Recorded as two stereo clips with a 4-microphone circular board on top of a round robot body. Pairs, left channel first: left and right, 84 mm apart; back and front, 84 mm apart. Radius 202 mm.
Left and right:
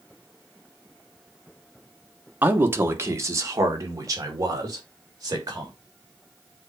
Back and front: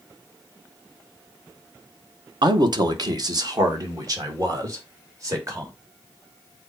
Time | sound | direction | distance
2.4 | a man speaking | 25° right | 1.4 m